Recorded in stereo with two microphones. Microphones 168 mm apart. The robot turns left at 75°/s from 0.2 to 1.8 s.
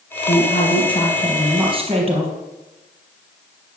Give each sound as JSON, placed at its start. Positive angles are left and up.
{"t": 0.3, "sound": "a woman speaking", "azimuth_deg": 80, "distance_m": 4.5}